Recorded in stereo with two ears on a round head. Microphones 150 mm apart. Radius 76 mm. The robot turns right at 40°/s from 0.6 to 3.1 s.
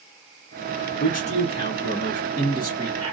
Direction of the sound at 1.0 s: 115° left.